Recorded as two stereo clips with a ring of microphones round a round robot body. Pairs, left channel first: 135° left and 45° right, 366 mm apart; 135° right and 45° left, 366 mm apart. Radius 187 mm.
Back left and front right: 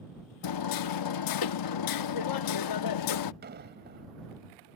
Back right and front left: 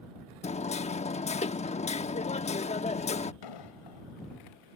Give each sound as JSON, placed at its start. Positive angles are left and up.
{"t": 0.4, "sound": "hammering", "azimuth_deg": 155}
{"t": 3.4, "sound": "an explosion", "azimuth_deg": -110}